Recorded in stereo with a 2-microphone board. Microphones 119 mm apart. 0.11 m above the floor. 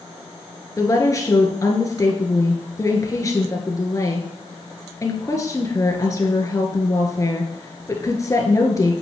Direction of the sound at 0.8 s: 30° left (ahead or behind).